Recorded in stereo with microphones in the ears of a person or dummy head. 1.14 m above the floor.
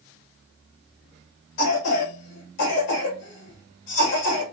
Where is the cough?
60° left (ahead or behind), 1.5 m.